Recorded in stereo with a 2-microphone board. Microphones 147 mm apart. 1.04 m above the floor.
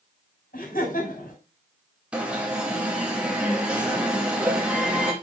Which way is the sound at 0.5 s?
75° left (ahead or behind).